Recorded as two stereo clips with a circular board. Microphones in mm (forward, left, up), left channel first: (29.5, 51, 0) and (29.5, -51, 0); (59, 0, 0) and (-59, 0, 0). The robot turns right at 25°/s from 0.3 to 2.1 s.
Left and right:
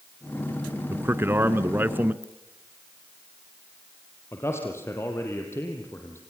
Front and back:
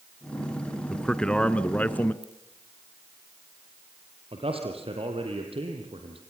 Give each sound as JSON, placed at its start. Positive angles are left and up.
{"t": 0.9, "sound": "a man speaking", "azimuth_deg": -80, "distance_m": 1.1}
{"t": 2.2, "sound": "a ringtone", "azimuth_deg": 145, "distance_m": 7.0}
{"t": 4.3, "sound": "a man speaking", "azimuth_deg": 150, "distance_m": 3.5}